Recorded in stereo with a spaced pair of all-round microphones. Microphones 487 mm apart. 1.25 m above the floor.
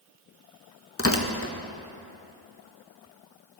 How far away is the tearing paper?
About 0.9 m.